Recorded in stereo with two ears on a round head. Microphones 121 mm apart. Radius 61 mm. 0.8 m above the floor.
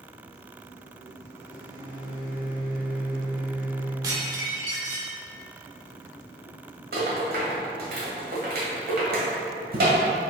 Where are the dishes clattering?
30° right (ahead or behind), 1.4 m.